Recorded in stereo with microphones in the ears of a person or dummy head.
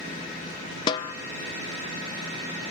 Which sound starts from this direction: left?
A snare drum, at 0.9 s.